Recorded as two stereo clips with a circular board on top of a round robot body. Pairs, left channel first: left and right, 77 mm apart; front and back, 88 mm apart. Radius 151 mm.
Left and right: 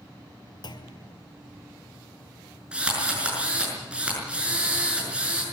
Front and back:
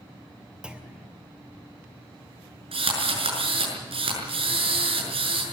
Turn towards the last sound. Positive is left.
turn(degrees=-170)